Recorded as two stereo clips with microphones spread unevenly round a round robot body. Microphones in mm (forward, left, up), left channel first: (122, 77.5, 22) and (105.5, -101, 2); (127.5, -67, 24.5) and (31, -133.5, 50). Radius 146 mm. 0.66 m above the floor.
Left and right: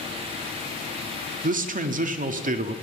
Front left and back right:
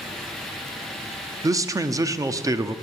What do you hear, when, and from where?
1.4 s a man speaking: 75° right, 1.1 m